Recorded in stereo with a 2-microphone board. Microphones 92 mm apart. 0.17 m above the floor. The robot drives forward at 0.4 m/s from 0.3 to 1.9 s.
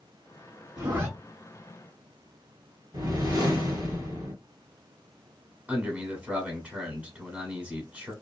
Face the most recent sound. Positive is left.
turn(degrees=-15)  # may be behind; listen again after turning